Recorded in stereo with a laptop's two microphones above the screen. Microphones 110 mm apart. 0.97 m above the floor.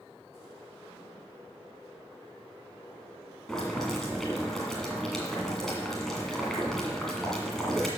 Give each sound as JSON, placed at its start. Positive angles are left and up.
{"t": 3.5, "sound": "boiling", "side_deg": 5, "distance_m": 2.0}